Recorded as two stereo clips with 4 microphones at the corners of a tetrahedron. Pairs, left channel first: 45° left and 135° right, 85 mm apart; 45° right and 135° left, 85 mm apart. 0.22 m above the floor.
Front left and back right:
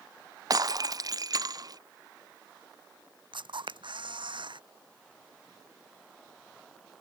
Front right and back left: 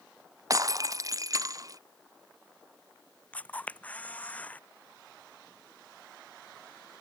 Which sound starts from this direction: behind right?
A camera shutter, at 3.3 s.